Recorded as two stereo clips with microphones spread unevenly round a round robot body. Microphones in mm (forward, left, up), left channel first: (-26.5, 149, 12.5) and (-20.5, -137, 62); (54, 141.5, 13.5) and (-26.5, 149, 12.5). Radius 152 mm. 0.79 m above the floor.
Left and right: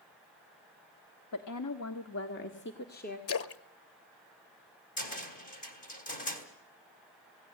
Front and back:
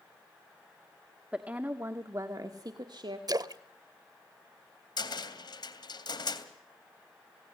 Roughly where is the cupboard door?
Ahead left.